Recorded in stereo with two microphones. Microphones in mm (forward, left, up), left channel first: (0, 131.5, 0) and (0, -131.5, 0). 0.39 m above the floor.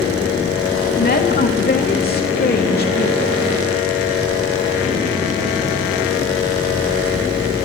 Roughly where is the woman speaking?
Left.